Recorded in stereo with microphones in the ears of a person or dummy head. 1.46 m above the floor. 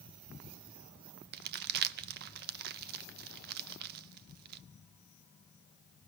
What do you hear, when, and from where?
1.3 s crumpling: 55° right (ahead or behind), 0.6 m